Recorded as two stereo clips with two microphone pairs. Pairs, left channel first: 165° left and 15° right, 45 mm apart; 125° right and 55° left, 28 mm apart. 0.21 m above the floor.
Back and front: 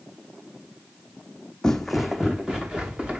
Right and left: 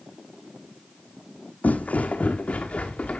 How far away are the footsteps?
About 0.6 m.